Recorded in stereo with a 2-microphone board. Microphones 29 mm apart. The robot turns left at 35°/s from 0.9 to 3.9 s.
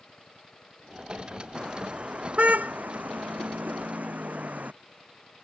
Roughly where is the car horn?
Right.